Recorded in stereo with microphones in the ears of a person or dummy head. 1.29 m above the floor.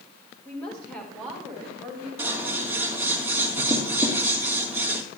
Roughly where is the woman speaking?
Centre.